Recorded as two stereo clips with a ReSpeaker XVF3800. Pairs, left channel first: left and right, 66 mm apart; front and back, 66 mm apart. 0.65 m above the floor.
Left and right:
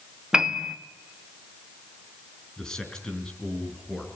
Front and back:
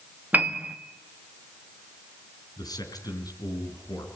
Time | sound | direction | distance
0.3 | a piano | 160° right | 1.3 m
2.6 | a man speaking | 10° left | 4.5 m